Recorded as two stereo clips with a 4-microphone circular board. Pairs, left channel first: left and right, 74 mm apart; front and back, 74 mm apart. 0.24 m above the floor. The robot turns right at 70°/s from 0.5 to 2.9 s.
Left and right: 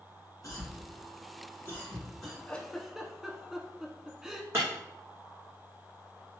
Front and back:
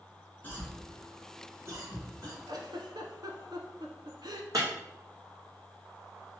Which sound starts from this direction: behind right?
Breaking glass, at 4.5 s.